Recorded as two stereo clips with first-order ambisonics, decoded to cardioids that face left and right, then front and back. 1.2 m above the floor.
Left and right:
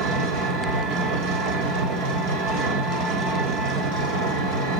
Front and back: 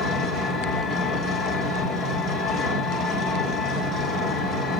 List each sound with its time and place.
0.0 s an engine running: 70° right, 2.5 m